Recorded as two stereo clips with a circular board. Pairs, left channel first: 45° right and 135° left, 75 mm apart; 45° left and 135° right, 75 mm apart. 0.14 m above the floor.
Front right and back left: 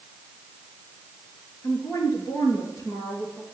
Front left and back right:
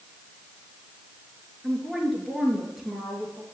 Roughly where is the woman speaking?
Ahead right.